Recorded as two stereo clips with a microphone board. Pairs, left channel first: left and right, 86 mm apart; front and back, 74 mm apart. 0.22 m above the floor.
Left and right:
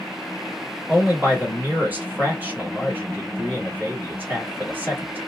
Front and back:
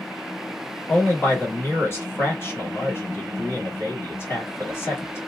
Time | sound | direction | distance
0.9 | a man speaking | 35° right | 1.4 m